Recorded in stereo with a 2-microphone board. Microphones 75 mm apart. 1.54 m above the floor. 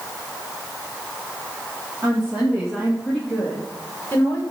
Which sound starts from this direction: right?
A woman speaking, at 2.0 s.